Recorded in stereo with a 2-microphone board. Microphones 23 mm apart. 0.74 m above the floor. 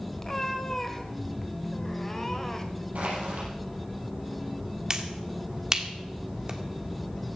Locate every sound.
0.2 s a cat meowing: 20° left (ahead or behind), 1.6 m
3.0 s crushing: 85° right, 6.5 m
4.9 s a finger snap: 30° right (ahead or behind), 1.6 m